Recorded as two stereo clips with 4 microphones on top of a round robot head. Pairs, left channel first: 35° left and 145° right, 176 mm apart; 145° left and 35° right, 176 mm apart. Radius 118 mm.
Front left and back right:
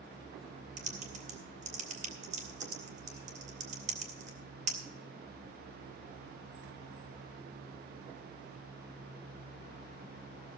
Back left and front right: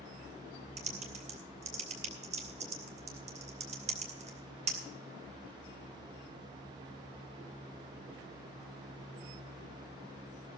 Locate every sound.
0.8 s typing on a keyboard: 90° right, 2.5 m